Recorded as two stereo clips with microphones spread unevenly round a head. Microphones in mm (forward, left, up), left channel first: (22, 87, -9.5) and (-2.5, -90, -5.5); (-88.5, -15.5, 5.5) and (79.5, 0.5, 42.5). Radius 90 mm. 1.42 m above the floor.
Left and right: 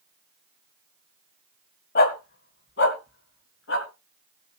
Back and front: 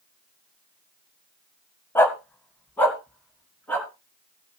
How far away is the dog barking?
About 1.8 m.